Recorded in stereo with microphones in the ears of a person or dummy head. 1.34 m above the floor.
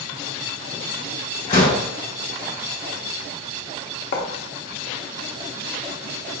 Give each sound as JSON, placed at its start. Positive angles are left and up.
{"t": 1.5, "sound": "a door slam", "side_deg": 40, "distance_m": 1.2}
{"t": 4.1, "sound": "writing", "side_deg": 55, "distance_m": 0.8}